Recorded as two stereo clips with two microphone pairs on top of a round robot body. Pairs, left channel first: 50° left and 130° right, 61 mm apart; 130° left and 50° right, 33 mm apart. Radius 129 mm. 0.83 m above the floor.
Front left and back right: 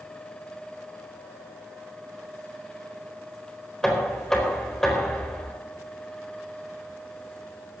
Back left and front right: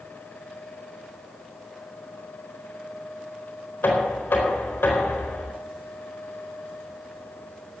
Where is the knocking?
130° left, 4.5 m.